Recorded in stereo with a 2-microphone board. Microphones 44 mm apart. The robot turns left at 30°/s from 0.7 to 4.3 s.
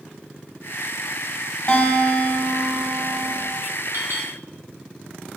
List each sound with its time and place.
1.7 s a guitar: 30° left, 1.1 m; by 3.5 s 30° right, 1.1 m
3.9 s a clink: 55° right (ahead or behind), 1.7 m; by 4.3 s 60° right (ahead or behind), 1.7 m